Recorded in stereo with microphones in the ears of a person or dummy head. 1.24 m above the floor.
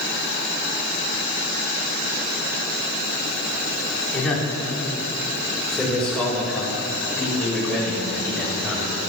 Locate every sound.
4.1 s a man speaking: 5° left (ahead or behind), 3.5 m